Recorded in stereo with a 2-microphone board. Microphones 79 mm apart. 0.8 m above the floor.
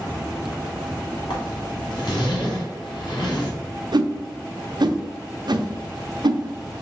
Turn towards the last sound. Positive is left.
turn(degrees=-65)  # may be behind; listen again after turning